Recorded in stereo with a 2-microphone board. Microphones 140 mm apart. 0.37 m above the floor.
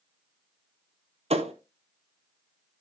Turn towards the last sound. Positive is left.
turn(degrees=-45)  # may be behind; listen again after turning